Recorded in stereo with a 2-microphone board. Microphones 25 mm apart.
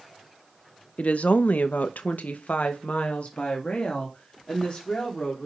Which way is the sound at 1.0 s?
55° left (ahead or behind).